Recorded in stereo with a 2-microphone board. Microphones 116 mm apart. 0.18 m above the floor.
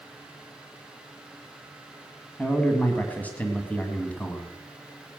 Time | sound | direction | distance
2.4 | a man speaking | 15° left (ahead or behind) | 1.6 m